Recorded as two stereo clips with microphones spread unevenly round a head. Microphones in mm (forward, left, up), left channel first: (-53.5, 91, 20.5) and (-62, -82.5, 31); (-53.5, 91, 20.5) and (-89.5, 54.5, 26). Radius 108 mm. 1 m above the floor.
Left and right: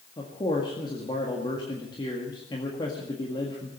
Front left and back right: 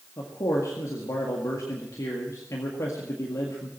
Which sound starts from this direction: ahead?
A man speaking, at 0.2 s.